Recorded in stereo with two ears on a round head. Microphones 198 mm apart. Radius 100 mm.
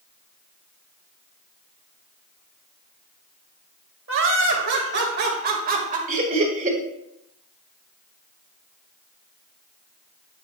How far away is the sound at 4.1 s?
About 2.5 m.